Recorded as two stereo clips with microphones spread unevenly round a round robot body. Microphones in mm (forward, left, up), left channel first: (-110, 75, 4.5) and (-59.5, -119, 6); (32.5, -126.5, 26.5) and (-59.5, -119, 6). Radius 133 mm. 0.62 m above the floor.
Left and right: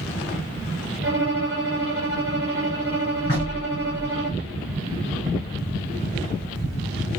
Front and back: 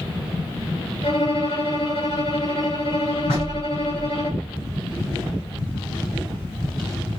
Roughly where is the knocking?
Ahead left.